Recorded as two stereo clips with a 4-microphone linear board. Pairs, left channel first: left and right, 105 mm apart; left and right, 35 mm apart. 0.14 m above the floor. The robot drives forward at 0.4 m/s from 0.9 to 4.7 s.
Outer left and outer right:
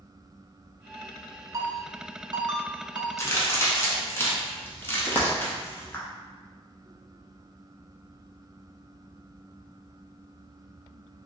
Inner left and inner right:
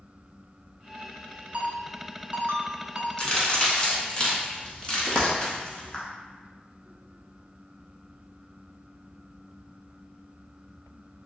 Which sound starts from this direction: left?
A crack, at 3.2 s.